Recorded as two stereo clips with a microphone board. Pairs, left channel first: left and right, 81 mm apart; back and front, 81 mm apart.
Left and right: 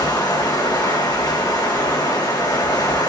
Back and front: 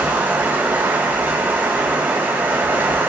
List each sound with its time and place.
0.0 s running water: 65° left, 2.5 m